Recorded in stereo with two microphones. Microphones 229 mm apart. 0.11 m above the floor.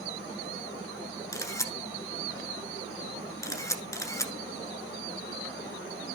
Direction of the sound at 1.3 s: 15° left (ahead or behind).